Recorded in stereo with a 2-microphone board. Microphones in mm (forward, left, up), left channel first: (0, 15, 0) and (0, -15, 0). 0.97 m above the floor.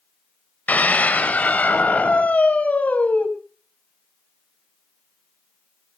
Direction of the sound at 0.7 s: 75° left (ahead or behind).